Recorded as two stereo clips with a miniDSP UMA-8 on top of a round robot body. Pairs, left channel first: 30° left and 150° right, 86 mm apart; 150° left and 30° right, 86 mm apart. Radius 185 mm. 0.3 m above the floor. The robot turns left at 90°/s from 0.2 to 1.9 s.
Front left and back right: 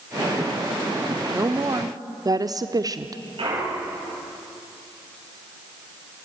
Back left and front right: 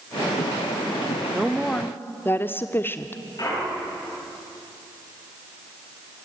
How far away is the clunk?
About 9 m.